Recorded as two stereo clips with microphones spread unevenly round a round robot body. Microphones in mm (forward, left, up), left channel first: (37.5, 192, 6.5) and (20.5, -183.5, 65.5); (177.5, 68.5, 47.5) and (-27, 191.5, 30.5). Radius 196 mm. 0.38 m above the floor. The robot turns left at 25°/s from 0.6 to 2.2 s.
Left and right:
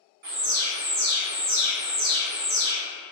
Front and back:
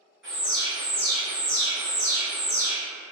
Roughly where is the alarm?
Behind right.